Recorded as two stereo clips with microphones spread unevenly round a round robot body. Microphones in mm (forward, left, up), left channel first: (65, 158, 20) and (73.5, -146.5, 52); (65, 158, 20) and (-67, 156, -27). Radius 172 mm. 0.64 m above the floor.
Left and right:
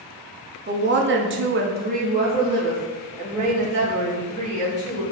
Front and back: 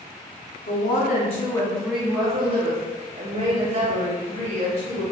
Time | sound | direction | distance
0.7 | a woman speaking | 30° right | 0.8 m